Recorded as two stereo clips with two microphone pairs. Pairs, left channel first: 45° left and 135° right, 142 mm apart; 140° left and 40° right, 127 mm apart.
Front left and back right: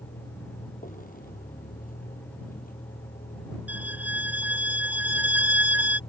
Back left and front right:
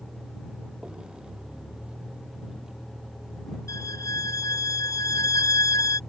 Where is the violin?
160° left.